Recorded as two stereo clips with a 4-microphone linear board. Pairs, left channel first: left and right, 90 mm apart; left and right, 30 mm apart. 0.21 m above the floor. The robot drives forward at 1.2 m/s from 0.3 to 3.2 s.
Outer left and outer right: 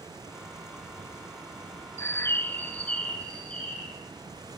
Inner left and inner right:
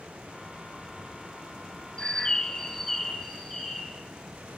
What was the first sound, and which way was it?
A bird, 30° left (ahead or behind).